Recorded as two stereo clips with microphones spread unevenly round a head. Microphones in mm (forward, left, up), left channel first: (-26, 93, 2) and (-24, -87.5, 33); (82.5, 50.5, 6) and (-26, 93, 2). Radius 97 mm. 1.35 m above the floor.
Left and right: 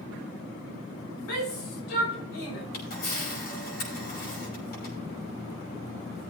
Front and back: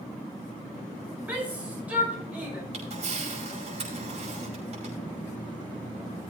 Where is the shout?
80° left, 6 m.